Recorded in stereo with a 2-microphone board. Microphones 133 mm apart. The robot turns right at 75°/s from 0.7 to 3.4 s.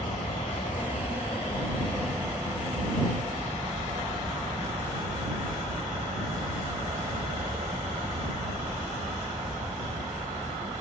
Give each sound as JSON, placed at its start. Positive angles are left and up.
{"t": 0.0, "sound": "an aircraft", "azimuth_deg": 65}